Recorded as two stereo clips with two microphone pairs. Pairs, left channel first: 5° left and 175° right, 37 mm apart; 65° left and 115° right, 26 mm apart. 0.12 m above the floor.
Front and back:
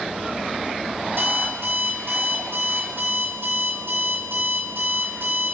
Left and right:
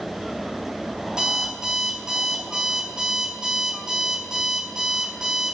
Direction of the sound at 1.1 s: Straight behind.